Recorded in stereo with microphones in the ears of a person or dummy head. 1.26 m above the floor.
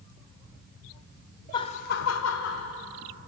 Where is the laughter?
20° left (ahead or behind), 0.9 m; by 2.7 s 65° left (ahead or behind), 1.2 m.